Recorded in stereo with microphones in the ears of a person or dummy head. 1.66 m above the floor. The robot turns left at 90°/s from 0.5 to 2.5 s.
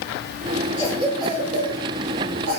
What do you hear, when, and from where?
0.8 s a cough: 20° left (ahead or behind), 1.3 m; by 2.6 s 40° right (ahead or behind), 1.3 m